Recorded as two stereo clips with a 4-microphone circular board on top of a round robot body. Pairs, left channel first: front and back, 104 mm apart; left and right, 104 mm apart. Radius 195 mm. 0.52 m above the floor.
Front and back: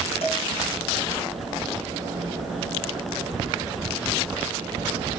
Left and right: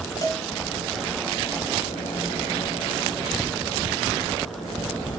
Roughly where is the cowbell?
Ahead left.